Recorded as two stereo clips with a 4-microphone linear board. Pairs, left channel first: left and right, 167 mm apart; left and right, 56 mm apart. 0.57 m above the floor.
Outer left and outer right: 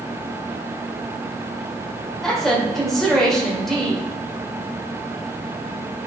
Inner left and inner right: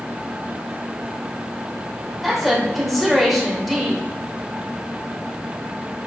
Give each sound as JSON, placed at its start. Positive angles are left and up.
{"t": 2.2, "sound": "a woman speaking", "side_deg": 0, "distance_m": 2.5}